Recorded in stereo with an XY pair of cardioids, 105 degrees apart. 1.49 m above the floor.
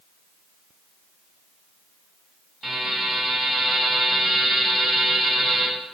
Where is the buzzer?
20° right, 1.9 m.